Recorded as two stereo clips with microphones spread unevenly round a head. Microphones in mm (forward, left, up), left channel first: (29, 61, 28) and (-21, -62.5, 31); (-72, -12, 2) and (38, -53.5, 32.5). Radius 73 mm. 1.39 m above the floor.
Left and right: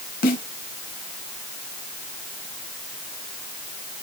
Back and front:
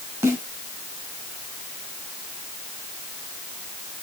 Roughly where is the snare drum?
Ahead left.